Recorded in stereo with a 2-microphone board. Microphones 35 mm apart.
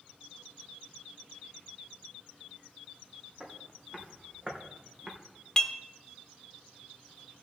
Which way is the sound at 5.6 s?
20° left (ahead or behind).